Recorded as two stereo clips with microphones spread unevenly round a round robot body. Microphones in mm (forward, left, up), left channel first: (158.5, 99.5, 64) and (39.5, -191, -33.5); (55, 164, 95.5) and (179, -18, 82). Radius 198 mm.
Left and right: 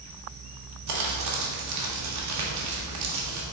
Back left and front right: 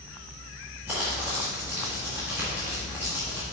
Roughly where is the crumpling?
Behind right.